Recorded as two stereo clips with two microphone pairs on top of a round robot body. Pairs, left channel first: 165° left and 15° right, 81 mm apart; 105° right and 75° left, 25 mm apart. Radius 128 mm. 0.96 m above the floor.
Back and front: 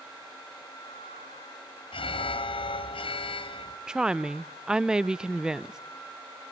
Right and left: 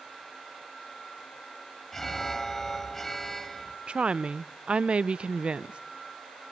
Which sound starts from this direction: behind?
An alarm, at 1.9 s.